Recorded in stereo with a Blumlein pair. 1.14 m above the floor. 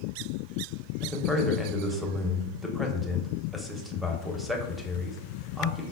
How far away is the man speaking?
About 0.8 m.